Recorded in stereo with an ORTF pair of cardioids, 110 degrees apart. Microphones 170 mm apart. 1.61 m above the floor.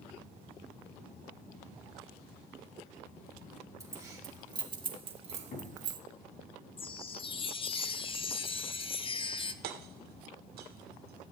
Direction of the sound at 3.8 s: 20° right.